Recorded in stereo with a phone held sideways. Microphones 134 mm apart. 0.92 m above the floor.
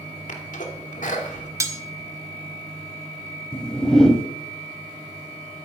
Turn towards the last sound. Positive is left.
turn(degrees=5)  # may be behind; listen again after turning